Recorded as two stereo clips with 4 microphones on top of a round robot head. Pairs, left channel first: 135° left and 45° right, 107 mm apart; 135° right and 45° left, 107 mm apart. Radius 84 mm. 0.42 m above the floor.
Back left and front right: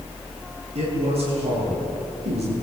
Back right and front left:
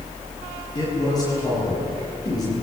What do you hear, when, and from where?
0.8 s a man speaking: 75° right, 10 m